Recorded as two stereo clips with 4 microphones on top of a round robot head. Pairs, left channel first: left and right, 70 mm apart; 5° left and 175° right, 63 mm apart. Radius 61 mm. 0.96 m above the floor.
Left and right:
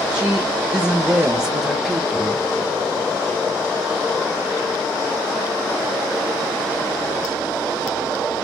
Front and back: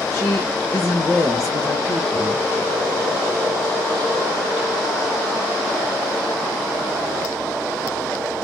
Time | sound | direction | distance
0.1 | a woman speaking | 15° right | 2.5 m